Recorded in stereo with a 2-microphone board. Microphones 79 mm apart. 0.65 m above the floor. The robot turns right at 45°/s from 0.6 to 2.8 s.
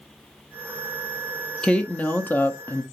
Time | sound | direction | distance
1.6 | a woman speaking | 10° left (ahead or behind) | 0.5 m